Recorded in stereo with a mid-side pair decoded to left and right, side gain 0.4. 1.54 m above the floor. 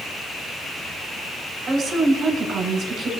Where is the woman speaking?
65° right, 6 m.